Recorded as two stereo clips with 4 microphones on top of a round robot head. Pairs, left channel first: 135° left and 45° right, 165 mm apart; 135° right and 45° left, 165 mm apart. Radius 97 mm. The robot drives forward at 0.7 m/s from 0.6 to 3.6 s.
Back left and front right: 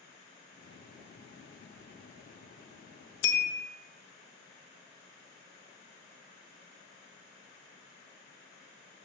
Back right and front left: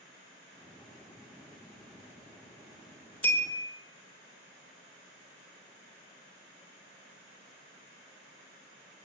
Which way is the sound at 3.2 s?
145° left.